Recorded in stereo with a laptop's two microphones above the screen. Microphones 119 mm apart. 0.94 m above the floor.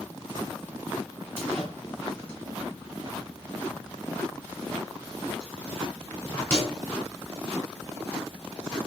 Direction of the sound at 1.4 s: 15° left (ahead or behind).